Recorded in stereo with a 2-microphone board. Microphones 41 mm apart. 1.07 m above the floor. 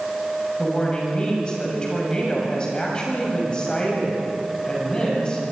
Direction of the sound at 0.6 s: 25° left (ahead or behind).